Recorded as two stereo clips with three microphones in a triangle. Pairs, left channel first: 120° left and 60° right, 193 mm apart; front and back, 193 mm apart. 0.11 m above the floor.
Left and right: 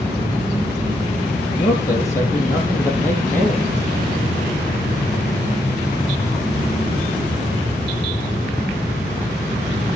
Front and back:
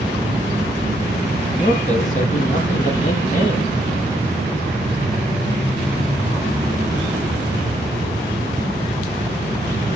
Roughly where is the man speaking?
Ahead left.